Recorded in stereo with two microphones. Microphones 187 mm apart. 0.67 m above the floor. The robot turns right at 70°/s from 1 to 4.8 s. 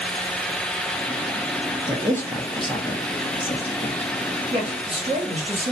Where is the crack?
I don't hear a crack.